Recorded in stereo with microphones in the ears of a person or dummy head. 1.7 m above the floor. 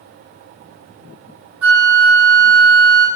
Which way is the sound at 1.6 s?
10° right (ahead or behind).